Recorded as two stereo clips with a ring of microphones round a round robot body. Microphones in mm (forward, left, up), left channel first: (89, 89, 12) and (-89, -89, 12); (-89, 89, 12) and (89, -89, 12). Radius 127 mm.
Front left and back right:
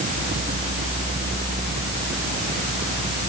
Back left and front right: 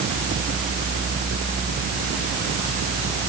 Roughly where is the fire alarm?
I don't hear a fire alarm.